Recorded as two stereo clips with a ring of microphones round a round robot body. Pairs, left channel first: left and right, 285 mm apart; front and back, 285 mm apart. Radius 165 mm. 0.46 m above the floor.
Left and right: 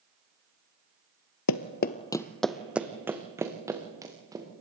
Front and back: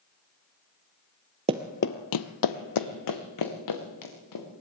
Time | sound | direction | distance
1.5 | running footsteps | 115° left | 0.6 m